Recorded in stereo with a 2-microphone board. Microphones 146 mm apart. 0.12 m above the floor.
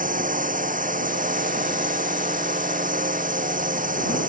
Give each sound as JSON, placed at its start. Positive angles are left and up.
{"t": 0.0, "sound": "a drone", "side_deg": -65}